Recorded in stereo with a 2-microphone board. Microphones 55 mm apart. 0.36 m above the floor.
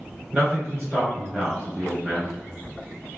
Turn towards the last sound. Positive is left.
turn(degrees=-15)  # may be behind; listen again after turning